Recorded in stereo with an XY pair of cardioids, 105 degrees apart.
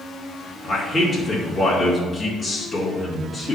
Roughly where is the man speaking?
Ahead.